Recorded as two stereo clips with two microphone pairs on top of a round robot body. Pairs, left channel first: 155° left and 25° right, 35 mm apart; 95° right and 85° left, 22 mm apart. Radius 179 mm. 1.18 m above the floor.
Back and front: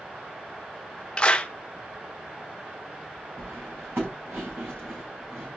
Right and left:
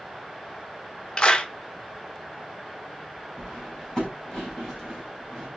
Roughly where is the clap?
Behind right.